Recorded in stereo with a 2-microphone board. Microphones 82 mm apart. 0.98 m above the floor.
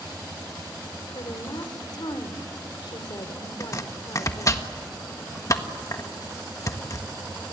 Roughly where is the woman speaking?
Left.